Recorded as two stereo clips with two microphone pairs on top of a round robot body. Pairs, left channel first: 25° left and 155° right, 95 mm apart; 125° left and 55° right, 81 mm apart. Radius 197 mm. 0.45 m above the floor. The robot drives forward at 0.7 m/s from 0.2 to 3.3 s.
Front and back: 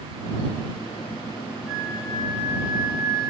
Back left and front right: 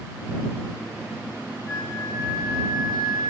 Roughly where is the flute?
Right.